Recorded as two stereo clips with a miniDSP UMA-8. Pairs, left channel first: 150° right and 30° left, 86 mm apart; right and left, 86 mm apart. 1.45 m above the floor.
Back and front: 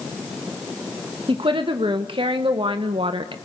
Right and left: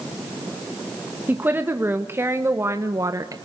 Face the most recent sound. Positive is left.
turn(degrees=45)